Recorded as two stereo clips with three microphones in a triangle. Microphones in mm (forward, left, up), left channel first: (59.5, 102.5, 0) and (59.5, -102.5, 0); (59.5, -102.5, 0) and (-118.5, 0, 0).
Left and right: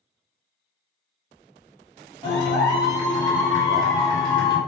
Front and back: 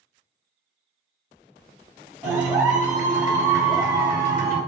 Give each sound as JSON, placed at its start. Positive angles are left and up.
{"t": 2.2, "sound": "a clap", "azimuth_deg": 120, "distance_m": 1.4}